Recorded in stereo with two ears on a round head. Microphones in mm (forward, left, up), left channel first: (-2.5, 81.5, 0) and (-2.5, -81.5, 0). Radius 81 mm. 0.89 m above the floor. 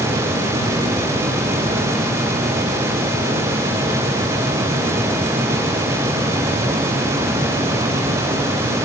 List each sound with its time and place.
Only background noise.